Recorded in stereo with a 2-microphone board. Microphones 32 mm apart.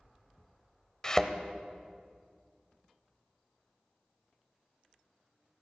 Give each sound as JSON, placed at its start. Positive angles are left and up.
{"t": 1.0, "sound": "a thud", "side_deg": 25, "distance_m": 0.9}